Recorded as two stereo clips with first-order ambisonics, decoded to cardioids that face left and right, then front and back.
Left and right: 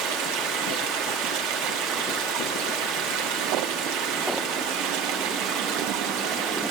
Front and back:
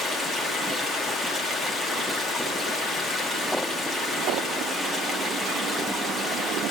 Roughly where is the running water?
Right.